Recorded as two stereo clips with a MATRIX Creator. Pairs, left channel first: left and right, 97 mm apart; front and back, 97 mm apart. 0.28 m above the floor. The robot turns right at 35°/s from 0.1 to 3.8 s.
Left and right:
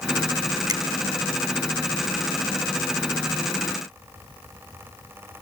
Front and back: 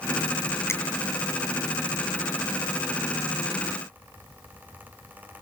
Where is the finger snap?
55° right, 2.5 m; by 0.8 s 50° right, 2.5 m.